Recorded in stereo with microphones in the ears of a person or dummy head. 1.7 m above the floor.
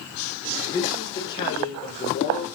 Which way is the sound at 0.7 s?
20° left (ahead or behind).